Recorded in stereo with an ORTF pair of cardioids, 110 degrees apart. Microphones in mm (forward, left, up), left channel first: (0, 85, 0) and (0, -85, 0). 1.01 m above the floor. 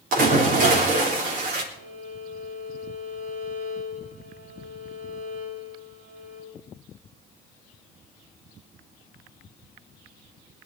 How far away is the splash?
About 3.5 m.